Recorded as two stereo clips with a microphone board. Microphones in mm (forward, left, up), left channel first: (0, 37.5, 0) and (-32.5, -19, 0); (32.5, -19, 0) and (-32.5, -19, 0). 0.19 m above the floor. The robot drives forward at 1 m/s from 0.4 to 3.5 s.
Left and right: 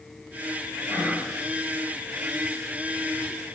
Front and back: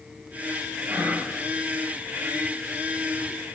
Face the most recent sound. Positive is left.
turn(degrees=130)